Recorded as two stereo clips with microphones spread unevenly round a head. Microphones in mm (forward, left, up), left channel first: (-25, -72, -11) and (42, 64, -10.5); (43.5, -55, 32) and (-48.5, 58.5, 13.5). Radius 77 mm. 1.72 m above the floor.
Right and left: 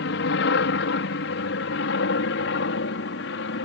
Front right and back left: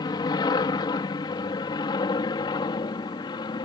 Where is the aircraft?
115° right.